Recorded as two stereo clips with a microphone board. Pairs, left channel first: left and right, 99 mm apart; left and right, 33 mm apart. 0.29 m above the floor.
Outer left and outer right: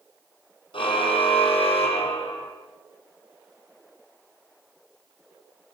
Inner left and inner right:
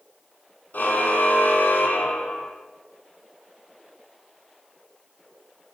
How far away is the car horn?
About 5.5 m.